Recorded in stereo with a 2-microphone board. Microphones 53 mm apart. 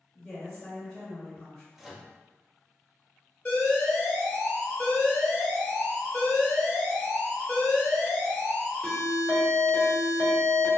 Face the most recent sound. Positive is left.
turn(degrees=20)  # may be behind; listen again after turning